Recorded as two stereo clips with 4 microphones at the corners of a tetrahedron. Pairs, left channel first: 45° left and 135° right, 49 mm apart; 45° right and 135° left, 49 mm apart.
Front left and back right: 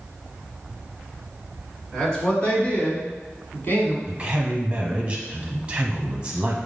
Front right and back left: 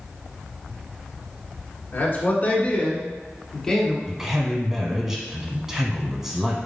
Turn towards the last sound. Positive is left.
turn(degrees=-160)